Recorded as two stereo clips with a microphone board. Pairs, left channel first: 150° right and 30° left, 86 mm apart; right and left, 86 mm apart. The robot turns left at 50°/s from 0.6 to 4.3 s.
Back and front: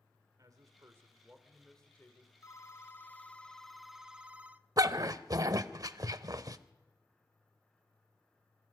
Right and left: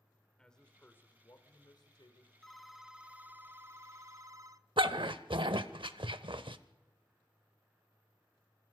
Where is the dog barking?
75° left, 0.7 m.